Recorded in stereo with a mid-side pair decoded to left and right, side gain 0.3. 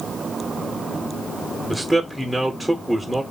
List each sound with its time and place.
1.7 s a man speaking: 10° right, 1.8 m